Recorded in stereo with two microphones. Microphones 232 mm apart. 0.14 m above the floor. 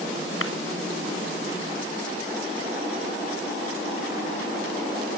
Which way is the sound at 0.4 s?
65° left (ahead or behind).